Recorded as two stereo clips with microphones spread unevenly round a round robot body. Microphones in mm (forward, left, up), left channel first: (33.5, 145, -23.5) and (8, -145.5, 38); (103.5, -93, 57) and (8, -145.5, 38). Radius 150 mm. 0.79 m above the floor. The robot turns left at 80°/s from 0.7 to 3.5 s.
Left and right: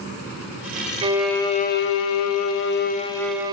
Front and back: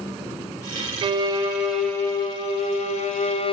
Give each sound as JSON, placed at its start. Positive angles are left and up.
{"t": 1.0, "sound": "a violin", "azimuth_deg": -175, "distance_m": 0.6}